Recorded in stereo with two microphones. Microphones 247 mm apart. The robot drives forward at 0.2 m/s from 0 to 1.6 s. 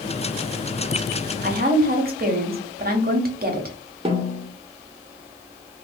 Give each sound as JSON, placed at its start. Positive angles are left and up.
{"t": 1.4, "sound": "a woman speaking", "side_deg": -40, "distance_m": 0.7}
{"t": 4.0, "sound": "a snare drum", "side_deg": -20, "distance_m": 0.7}